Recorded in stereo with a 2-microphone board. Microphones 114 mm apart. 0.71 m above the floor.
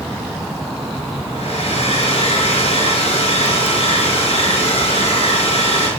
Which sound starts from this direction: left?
A hair dryer, at 1.3 s.